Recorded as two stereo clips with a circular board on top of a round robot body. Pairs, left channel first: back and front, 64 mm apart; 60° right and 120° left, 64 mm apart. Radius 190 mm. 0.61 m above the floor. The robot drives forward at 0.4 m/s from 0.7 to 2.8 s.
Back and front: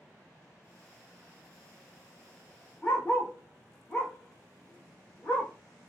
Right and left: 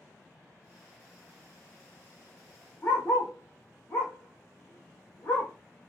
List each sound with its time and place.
2.8 s a dog barking: 120° right, 0.6 m